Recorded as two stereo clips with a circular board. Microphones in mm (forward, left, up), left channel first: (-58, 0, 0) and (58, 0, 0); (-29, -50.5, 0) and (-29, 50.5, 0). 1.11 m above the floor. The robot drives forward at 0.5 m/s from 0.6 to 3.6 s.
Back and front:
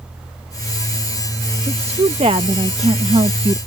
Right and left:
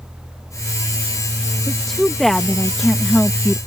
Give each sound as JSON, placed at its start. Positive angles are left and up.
{"t": 1.7, "sound": "a woman speaking", "azimuth_deg": -5}